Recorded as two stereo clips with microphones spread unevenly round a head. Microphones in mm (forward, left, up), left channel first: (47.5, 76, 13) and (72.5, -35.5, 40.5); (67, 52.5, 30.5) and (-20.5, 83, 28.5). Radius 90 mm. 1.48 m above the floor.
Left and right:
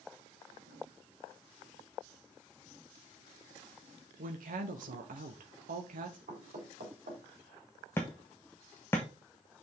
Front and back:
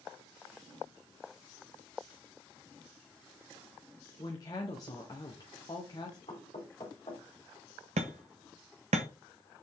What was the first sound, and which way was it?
A woman speaking, 80° right.